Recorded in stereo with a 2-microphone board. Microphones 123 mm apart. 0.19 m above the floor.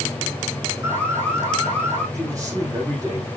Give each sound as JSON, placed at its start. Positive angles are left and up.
{"t": 0.8, "sound": "an alarm", "side_deg": -20, "distance_m": 6.0}
{"t": 2.1, "sound": "a man speaking", "side_deg": -25, "distance_m": 7.0}